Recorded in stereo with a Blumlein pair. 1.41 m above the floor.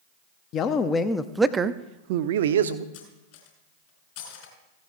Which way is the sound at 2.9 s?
50° left.